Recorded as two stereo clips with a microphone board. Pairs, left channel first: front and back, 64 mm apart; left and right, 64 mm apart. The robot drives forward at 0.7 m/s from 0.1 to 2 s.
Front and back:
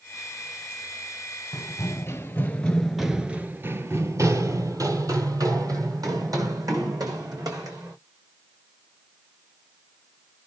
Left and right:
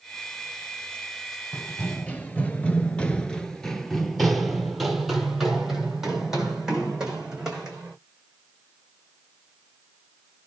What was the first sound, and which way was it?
Running footsteps, 20° left.